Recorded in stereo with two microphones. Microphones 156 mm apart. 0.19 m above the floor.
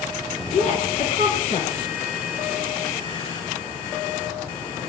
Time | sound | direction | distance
0.5 | a woman speaking | 50° left (ahead or behind) | 2 m